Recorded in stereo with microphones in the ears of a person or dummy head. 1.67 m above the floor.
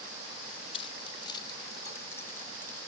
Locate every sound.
0.7 s keys jangling: 35° left (ahead or behind); by 2.8 s 10° left (ahead or behind)